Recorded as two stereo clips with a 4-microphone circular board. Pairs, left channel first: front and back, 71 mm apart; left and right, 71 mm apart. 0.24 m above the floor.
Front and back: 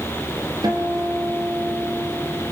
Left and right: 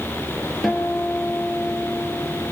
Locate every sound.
0.6 s a guitar: 175° left, 4.5 m